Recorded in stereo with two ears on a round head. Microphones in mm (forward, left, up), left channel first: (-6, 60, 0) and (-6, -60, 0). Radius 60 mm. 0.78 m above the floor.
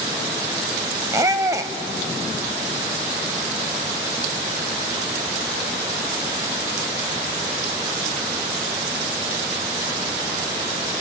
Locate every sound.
1.1 s a squeak: 25° right (ahead or behind), 0.9 m